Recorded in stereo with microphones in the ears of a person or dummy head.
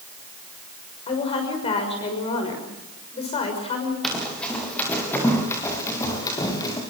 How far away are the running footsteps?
About 8.5 m.